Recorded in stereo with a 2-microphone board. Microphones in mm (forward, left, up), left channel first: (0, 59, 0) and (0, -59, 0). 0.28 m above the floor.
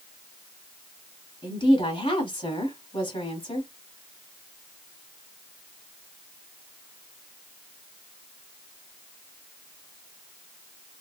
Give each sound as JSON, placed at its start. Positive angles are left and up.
{"t": 1.4, "sound": "a woman speaking", "side_deg": 50, "distance_m": 2.5}